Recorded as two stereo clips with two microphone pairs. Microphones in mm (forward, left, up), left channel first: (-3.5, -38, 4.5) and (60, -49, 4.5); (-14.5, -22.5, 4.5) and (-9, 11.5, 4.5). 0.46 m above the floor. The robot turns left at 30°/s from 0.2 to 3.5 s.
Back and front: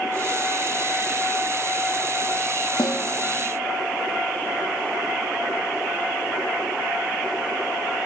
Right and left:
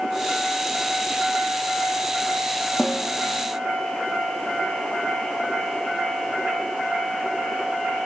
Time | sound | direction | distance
2.8 | a snare drum | 175° left | 3 m